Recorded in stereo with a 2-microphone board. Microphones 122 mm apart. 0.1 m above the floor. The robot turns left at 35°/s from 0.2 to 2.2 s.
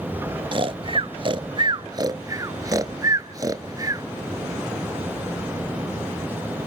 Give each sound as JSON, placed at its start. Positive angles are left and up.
{"t": 0.5, "sound": "snoring", "side_deg": -40, "distance_m": 0.5}